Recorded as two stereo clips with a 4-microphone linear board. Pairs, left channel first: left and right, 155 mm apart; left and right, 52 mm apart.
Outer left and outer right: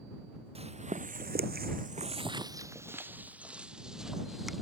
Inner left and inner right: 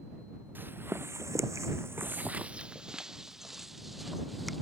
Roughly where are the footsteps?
Right.